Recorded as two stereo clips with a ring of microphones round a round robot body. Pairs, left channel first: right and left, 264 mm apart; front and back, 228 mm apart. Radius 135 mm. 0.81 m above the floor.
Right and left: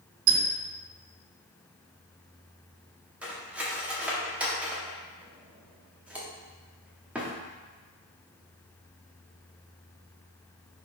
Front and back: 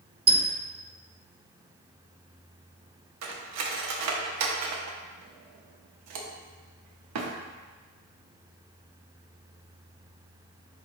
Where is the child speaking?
No child speaking in this recording.